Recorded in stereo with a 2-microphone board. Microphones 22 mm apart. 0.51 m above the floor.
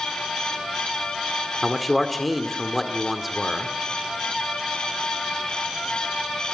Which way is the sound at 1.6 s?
Centre (ahead or behind).